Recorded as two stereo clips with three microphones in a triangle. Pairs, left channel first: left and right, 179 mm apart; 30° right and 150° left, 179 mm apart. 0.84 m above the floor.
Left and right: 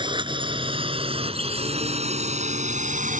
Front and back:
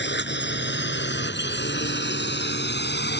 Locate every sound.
0.0 s a drone: 25° right; by 3.2 s 45° right